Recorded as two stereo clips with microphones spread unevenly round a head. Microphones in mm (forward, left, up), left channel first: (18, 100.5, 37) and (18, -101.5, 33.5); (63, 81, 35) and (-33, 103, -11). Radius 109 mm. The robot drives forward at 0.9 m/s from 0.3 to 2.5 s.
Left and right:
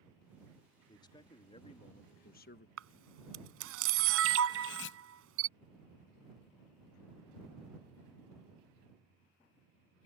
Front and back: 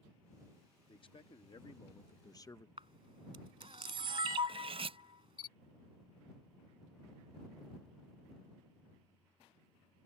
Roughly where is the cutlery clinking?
Behind left.